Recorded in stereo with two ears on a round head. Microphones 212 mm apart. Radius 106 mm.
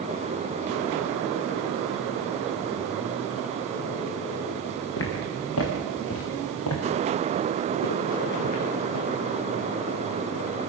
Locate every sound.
5.0 s footsteps: 60° left (ahead or behind), 4.5 m; by 9.1 s 75° left (ahead or behind), 5 m